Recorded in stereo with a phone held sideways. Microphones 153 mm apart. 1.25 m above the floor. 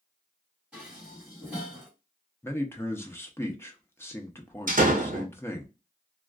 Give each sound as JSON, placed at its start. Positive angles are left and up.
{"t": 0.7, "sound": "dishes clattering", "side_deg": -5, "distance_m": 1.7}
{"t": 2.4, "sound": "a man speaking", "side_deg": 15, "distance_m": 0.5}
{"t": 4.7, "sound": "a door slam", "side_deg": -60, "distance_m": 0.7}